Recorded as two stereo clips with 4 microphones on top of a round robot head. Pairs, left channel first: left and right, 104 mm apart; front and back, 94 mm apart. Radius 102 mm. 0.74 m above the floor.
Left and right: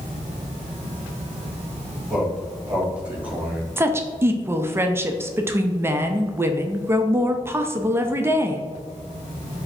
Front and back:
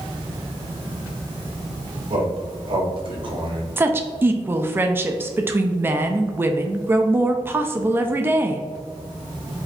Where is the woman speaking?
135° right, 0.5 m.